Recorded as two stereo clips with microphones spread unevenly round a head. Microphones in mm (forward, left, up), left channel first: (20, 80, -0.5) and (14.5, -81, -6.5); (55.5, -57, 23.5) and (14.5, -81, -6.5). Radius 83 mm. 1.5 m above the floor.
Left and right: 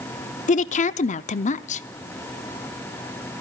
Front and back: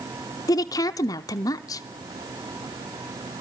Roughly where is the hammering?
No hammering in this recording.